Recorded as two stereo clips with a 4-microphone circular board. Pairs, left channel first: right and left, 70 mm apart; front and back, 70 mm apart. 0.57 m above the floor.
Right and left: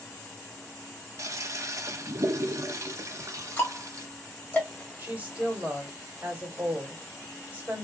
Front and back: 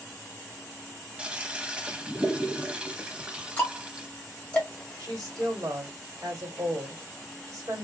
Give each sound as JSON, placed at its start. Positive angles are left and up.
{"t": 1.2, "sound": "a toilet flushing", "azimuth_deg": 110, "distance_m": 0.5}
{"t": 3.6, "sound": "ticking", "azimuth_deg": -55, "distance_m": 1.3}
{"t": 5.0, "sound": "a woman speaking", "azimuth_deg": 150, "distance_m": 1.6}